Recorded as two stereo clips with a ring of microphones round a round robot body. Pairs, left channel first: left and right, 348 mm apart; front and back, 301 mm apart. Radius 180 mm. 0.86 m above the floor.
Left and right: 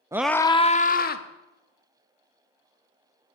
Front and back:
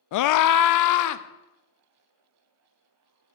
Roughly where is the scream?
Ahead.